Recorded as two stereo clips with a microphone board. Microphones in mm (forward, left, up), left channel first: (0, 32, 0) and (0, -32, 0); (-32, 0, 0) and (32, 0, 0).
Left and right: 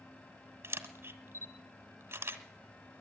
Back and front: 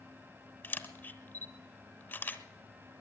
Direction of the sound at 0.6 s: 130° right.